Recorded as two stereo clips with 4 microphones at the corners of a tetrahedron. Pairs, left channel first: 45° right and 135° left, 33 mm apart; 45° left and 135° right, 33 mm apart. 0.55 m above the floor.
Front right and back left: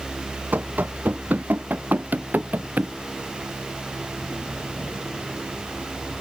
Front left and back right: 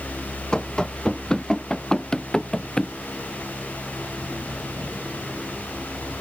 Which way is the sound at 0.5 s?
110° left.